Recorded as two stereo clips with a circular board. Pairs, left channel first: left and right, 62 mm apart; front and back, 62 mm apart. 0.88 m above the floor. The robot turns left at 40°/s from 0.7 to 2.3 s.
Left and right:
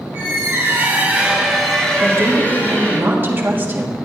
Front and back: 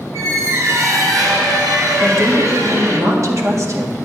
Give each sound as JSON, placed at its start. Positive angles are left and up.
{"t": 0.1, "sound": "a squeak", "azimuth_deg": -145, "distance_m": 1.9}
{"t": 2.0, "sound": "a woman speaking", "azimuth_deg": -135, "distance_m": 1.6}